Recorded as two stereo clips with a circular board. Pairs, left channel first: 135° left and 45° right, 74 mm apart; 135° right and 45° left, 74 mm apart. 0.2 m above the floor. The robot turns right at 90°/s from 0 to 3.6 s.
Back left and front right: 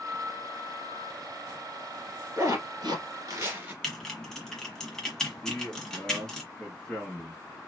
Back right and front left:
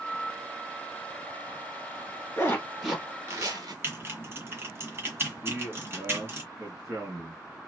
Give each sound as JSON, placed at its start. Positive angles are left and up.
{"t": 2.4, "sound": "a zipper", "azimuth_deg": -90, "distance_m": 1.7}
{"t": 3.8, "sound": "typing on a keyboard", "azimuth_deg": 60, "distance_m": 1.4}
{"t": 5.4, "sound": "a man speaking", "azimuth_deg": 60, "distance_m": 2.0}